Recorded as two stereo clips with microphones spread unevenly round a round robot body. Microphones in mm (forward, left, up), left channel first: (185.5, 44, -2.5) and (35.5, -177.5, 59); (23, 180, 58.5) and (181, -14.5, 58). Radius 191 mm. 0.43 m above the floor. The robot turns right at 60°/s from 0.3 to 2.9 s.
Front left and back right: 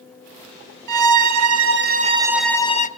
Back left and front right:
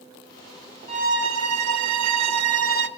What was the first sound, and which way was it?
A violin, 125° right.